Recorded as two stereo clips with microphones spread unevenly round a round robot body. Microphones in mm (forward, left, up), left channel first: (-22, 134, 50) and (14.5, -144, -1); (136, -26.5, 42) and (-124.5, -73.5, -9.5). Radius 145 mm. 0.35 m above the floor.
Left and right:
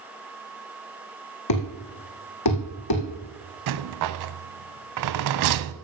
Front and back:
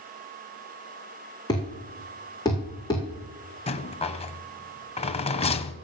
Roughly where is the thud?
Left.